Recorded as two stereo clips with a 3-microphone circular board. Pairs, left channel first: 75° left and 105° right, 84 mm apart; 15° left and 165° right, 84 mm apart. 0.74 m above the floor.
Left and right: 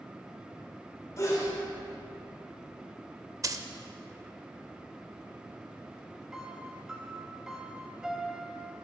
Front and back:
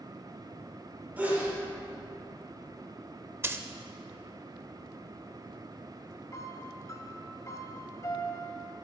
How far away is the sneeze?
About 3 m.